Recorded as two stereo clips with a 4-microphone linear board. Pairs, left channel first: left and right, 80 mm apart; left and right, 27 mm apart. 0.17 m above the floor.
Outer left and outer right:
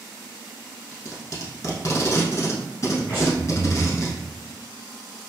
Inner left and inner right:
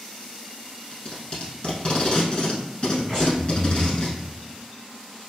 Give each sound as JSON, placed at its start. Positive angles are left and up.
{"t": 0.9, "sound": "tape being pulled", "side_deg": 40, "distance_m": 0.8}
{"t": 3.1, "sound": "breathing", "side_deg": 25, "distance_m": 1.6}